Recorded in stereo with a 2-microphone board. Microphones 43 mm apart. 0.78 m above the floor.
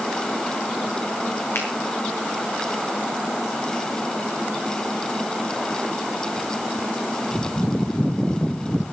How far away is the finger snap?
About 8 m.